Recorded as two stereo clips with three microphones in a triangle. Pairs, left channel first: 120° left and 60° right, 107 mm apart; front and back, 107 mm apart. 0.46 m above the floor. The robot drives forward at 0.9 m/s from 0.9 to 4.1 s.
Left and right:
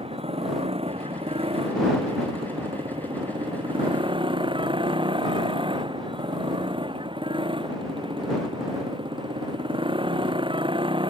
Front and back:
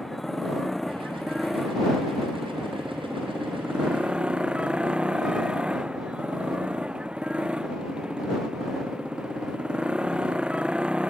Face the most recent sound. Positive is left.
turn(degrees=-100)